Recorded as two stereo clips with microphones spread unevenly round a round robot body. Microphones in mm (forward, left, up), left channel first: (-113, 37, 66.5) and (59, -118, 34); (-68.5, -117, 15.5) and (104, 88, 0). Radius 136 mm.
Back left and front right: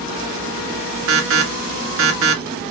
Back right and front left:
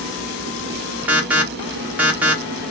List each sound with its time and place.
1.1 s an alarm: 35° right, 1.2 m